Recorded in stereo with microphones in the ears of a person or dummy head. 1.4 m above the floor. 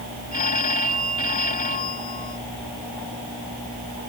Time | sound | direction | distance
0.3 | a phone ringing | 40° left (ahead or behind) | ?